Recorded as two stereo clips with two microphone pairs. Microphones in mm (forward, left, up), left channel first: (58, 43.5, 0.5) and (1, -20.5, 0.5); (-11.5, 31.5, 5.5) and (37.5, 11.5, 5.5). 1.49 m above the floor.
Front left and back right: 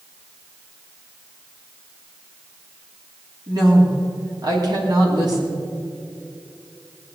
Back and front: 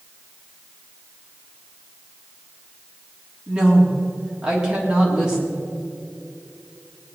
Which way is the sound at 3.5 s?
95° right.